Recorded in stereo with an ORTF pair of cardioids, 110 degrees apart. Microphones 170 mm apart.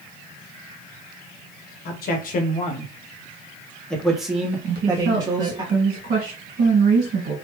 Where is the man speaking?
70° left, 1.1 m; by 5.6 s 25° right, 1.6 m.